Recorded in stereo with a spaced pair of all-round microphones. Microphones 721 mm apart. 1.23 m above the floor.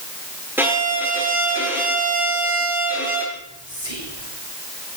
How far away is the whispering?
About 9 m.